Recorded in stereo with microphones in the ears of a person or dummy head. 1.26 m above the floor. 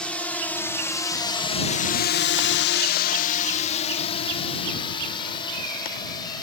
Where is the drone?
5° left (ahead or behind); by 6.4 s 20° left (ahead or behind).